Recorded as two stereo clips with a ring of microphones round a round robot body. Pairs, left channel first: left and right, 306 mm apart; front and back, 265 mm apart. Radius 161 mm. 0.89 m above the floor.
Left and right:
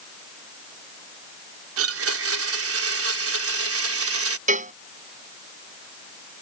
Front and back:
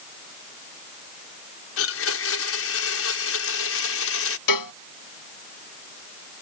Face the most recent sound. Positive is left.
turn(degrees=-25)